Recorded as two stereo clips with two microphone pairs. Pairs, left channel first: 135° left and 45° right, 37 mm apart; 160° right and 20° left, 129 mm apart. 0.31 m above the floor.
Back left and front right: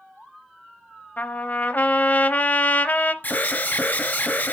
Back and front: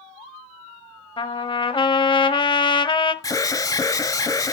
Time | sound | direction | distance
1.2 | a trumpet | 160° left | 0.7 m
3.2 | an alarm | 150° left | 1.0 m